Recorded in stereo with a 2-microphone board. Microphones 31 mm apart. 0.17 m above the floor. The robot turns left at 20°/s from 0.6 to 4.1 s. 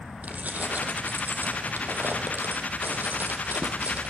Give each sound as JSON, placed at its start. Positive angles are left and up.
{"t": 0.2, "sound": "keys jangling", "azimuth_deg": -55, "distance_m": 3.5}